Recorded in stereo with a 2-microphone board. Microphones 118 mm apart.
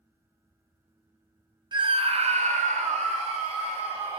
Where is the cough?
No cough in this recording.